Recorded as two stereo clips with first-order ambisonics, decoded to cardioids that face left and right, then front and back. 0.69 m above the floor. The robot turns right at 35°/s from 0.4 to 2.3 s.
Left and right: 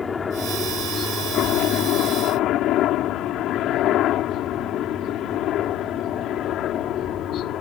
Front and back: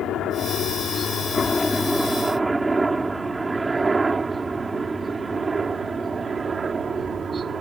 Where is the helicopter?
25° left; by 7.6 s 115° left.